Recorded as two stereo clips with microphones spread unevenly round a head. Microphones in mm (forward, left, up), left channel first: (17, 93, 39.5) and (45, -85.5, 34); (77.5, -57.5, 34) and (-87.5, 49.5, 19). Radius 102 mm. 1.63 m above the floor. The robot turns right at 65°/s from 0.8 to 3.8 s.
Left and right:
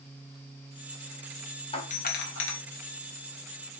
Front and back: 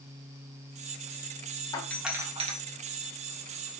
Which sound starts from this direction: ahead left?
A doorbell, at 1.7 s.